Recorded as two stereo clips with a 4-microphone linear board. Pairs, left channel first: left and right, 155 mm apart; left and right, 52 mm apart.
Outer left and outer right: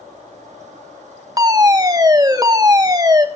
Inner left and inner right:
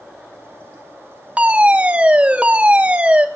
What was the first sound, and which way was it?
A fire alarm, 25° right (ahead or behind).